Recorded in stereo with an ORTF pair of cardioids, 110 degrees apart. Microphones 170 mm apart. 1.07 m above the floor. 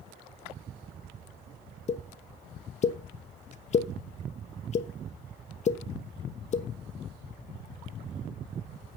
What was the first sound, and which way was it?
A pop, 45° left.